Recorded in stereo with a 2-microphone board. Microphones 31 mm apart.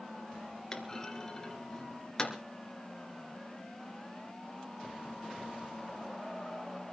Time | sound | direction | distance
0.7 | a clunk | 20° left (ahead or behind) | 2.5 m